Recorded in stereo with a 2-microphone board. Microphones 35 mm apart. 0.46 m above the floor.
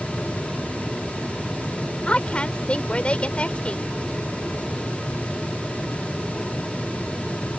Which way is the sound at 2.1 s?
35° left (ahead or behind).